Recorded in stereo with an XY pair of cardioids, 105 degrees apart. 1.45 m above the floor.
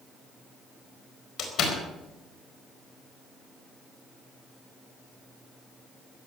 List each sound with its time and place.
1.4 s a door slam: 70° left, 4.5 m